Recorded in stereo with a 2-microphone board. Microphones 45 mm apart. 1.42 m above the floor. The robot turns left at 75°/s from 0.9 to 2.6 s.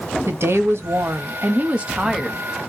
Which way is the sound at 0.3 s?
80° right.